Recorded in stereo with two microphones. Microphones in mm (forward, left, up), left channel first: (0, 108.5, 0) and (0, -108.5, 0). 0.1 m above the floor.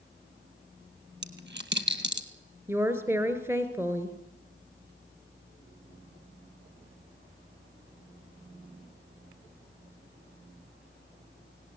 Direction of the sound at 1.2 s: 55° right (ahead or behind).